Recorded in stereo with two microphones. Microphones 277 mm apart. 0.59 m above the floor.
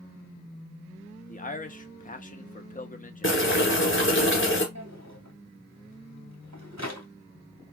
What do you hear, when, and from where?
1.3 s a man speaking: 30° left (ahead or behind), 0.7 m
3.2 s boiling: 45° left (ahead or behind), 2 m
4.8 s a drawer: 75° right (ahead or behind), 1.6 m